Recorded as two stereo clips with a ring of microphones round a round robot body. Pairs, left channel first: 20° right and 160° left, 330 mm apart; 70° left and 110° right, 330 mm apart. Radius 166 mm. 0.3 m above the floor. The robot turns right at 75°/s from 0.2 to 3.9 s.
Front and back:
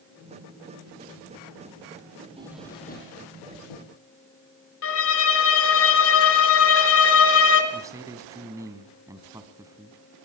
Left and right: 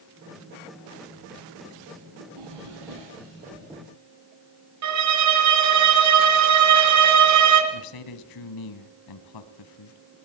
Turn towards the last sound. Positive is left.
turn(degrees=80)